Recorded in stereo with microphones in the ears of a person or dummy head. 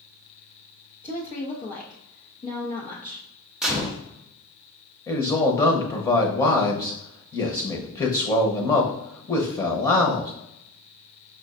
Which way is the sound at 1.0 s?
35° left (ahead or behind).